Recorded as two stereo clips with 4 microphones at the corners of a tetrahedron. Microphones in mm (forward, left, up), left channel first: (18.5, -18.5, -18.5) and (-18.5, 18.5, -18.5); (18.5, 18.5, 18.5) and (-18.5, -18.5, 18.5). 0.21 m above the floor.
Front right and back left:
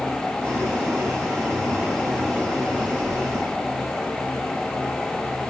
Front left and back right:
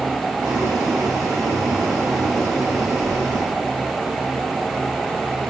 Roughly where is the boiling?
Behind.